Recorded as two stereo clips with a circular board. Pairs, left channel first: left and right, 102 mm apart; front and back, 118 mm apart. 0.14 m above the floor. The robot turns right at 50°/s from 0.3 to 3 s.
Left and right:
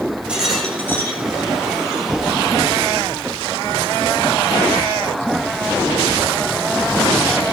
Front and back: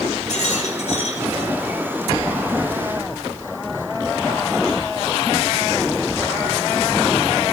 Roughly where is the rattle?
Ahead.